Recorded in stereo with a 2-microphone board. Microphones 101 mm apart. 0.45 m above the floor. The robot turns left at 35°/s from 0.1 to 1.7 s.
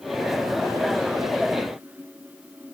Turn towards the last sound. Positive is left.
No sound to turn to.